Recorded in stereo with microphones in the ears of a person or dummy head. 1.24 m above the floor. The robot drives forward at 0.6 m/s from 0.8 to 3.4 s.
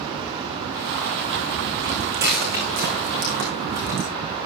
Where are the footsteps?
50° right (ahead or behind), 5.5 m; by 4.1 s 65° right (ahead or behind), 6.5 m.